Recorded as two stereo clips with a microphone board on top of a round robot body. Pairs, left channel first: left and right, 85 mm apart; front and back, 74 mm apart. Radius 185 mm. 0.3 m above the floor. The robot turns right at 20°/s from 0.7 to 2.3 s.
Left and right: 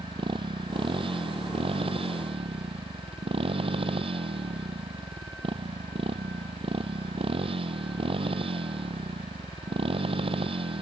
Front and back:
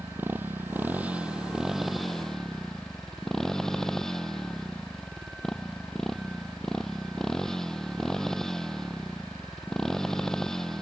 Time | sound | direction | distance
0.0 | a motorcycle | 115° right | ?